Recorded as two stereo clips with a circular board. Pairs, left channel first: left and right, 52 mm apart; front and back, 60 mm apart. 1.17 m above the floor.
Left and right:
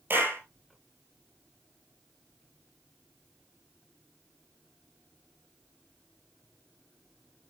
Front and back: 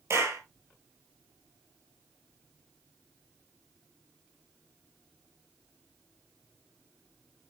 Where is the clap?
140° right, 5 m.